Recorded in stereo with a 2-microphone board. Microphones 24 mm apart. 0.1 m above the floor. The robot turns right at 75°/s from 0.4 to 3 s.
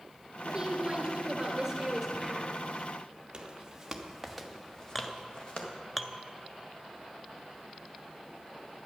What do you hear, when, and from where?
0.5 s a woman speaking: 130° right, 1.6 m; by 2.5 s 25° left, 1.6 m
3.3 s footsteps: 30° right (ahead or behind), 1.9 m; by 5.7 s 45° left (ahead or behind), 2.5 m
5.0 s a clink: 5° left (ahead or behind), 0.7 m